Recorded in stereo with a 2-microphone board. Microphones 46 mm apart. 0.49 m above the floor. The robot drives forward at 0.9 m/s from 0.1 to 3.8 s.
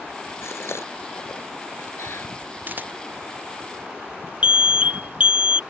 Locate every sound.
0.4 s a gasp: 70° left (ahead or behind); by 2.3 s 80° left
2.7 s a camera shutter: 45° right (ahead or behind)
4.4 s an alarm: 25° right (ahead or behind)